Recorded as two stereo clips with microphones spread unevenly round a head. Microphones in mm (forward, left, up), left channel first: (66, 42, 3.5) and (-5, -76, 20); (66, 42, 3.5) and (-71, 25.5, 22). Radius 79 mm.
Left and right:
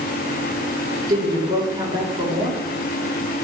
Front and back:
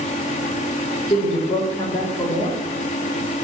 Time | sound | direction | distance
1.1 | a woman speaking | 55° right | 5 m